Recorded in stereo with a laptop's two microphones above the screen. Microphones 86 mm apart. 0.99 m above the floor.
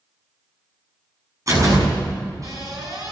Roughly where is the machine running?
No machine running in this recording.